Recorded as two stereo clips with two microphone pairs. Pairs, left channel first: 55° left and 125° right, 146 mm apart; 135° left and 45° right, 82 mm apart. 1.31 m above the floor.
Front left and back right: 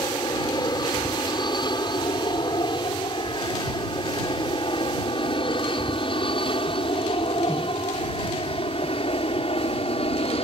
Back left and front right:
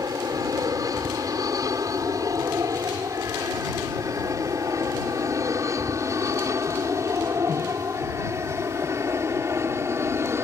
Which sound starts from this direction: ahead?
An aircraft, at 0.0 s.